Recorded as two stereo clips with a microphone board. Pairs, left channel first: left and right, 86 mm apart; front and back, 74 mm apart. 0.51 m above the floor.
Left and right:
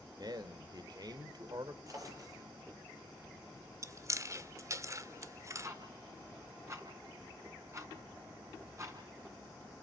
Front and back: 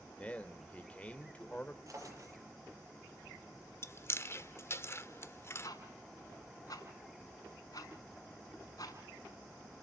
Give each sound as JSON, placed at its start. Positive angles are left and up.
{"t": 0.2, "sound": "a man speaking", "azimuth_deg": -70, "distance_m": 1.8}
{"t": 1.9, "sound": "a drawer", "azimuth_deg": -135, "distance_m": 7.5}
{"t": 3.8, "sound": "chewing", "azimuth_deg": -45, "distance_m": 1.1}
{"t": 5.6, "sound": "ticking", "azimuth_deg": -35, "distance_m": 5.5}